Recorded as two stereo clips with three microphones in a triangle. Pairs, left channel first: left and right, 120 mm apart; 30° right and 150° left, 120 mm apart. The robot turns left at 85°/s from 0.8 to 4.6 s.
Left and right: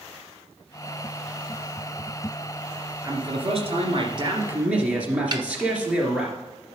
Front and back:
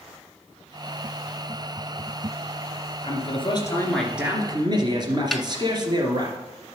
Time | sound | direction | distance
3.0 | a man speaking | 35° right | 2.5 m
5.3 | a snare drum | 120° right | 0.7 m